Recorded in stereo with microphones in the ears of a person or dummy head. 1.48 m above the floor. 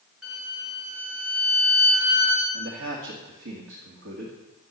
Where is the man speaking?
70° right (ahead or behind), 2.5 m.